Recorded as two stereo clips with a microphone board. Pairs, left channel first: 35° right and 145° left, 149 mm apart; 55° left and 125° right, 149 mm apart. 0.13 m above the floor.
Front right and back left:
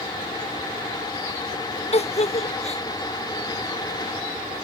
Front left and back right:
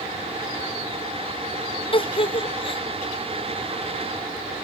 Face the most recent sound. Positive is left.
turn(degrees=5)